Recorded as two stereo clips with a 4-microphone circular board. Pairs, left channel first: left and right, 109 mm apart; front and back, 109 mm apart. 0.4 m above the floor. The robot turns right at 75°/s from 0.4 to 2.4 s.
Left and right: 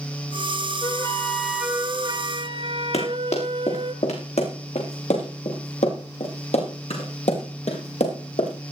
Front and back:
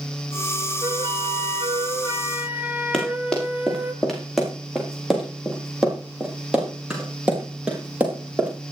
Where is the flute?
135° left, 1.1 m; by 3.9 s 105° right, 1.1 m.